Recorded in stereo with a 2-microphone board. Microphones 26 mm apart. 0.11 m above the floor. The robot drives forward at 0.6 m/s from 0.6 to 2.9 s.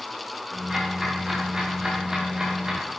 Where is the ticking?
20° right (ahead or behind), 8 m.